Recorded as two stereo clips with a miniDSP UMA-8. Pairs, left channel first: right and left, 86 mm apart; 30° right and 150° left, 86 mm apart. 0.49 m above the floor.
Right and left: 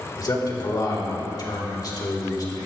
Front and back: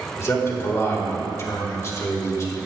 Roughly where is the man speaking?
Right.